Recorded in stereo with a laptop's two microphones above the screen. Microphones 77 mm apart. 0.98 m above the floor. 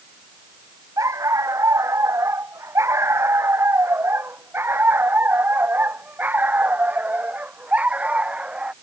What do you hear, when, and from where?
1.0 s a dog barking: 45° right (ahead or behind); by 8.7 s 15° right (ahead or behind)